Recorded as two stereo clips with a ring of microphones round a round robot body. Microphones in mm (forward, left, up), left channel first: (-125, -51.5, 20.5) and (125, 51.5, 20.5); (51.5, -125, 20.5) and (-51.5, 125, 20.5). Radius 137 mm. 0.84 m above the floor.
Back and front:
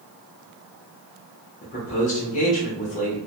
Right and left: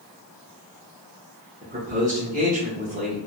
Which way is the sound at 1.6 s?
155° left.